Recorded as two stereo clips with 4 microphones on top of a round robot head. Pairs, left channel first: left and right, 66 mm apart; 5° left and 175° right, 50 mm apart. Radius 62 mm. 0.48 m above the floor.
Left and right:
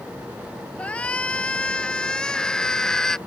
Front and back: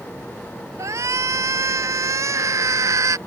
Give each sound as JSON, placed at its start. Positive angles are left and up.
{"t": 0.8, "sound": "a shout", "azimuth_deg": 165}